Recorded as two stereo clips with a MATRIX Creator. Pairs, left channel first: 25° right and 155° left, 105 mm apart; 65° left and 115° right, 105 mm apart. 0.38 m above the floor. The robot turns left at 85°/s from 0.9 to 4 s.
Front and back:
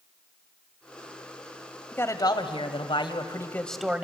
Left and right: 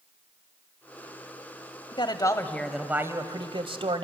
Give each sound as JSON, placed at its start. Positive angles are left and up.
{"t": 1.9, "sound": "a man speaking", "azimuth_deg": 45, "distance_m": 1.6}